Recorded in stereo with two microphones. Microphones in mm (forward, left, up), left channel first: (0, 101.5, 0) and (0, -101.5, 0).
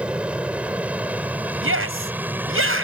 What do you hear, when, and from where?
0.0 s an aircraft: 5° right (ahead or behind); by 2.9 s 10° right (ahead or behind)
1.6 s a shout: 80° right